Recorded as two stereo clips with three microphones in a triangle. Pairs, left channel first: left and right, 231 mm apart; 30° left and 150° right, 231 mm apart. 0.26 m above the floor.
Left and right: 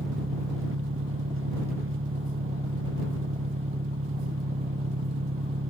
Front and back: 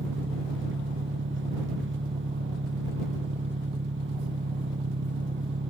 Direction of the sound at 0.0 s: 115° right.